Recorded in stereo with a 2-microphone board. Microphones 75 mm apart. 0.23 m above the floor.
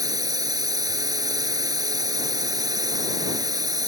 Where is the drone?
60° right (ahead or behind).